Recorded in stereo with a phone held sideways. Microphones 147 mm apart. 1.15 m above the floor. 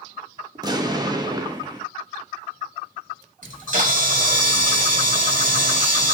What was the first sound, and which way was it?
An explosion, 25° right (ahead or behind).